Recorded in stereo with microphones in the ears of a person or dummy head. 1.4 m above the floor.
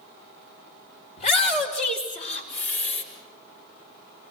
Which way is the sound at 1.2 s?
40° left (ahead or behind).